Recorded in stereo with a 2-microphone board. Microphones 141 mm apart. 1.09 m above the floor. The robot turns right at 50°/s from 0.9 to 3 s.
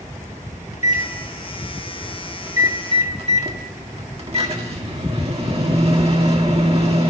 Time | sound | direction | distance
0.7 | a microwave | 120° left | 1.6 m